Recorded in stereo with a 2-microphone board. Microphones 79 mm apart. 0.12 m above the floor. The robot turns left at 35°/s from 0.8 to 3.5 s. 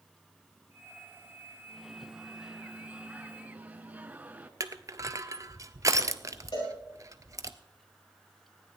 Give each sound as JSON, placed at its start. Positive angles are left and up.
{"t": 1.7, "sound": "a microwave", "side_deg": 0, "distance_m": 0.9}
{"t": 4.6, "sound": "crushing", "side_deg": -45, "distance_m": 0.7}
{"t": 6.5, "sound": "a cowbell", "side_deg": 80, "distance_m": 7.5}